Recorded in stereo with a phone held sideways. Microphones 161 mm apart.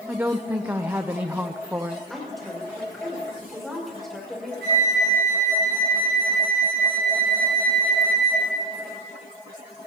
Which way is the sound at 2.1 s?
Centre (ahead or behind).